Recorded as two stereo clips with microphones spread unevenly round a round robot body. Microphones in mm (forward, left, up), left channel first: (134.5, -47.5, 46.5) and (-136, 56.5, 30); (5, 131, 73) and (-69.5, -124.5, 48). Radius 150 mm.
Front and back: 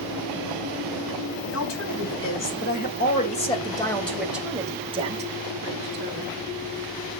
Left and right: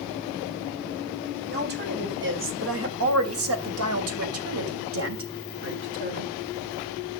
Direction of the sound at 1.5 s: 55° right.